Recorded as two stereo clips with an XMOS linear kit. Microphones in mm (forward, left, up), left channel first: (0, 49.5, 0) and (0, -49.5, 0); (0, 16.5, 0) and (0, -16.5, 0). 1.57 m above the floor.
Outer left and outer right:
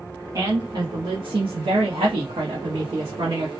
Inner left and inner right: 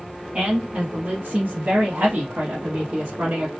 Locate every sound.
0.3 s a woman speaking: 35° right (ahead or behind), 1.0 m